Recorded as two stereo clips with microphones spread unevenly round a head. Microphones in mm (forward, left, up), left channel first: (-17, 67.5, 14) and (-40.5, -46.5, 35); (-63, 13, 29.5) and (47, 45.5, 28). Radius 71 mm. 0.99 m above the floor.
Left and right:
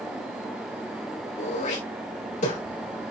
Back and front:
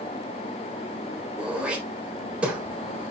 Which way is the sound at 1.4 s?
95° left.